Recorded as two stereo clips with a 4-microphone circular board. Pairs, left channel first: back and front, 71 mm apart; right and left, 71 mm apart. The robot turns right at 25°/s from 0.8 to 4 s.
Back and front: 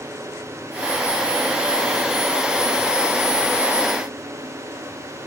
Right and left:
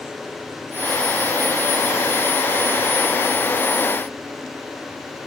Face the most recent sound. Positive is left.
No sound to turn to.